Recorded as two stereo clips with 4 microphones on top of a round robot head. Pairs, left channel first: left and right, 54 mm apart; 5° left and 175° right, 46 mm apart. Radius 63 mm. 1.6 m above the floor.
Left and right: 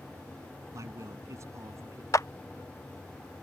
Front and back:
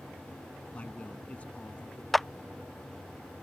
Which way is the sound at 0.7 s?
60° right.